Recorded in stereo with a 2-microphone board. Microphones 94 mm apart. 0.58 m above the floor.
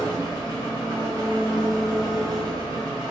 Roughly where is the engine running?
Right.